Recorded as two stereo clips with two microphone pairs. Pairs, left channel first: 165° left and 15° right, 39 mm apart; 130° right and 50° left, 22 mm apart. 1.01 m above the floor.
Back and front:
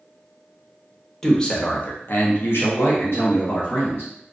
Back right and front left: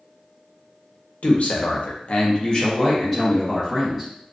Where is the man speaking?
115° right, 0.6 m; by 4.1 s 140° left, 1.3 m.